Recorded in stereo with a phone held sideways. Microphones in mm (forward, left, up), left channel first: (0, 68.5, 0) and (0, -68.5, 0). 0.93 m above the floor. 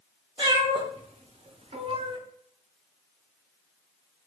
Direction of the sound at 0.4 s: 35° right (ahead or behind).